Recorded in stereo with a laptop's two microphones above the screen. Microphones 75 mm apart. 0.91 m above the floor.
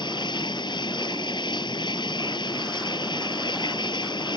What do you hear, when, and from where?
0.0 s running water: 85° left